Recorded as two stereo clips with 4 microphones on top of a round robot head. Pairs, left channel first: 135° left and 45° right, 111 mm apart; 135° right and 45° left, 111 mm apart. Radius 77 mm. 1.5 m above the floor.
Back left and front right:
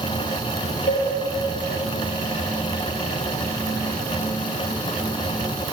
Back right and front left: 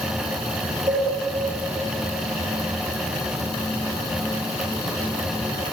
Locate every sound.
0.9 s a cowbell: 105° left, 3.5 m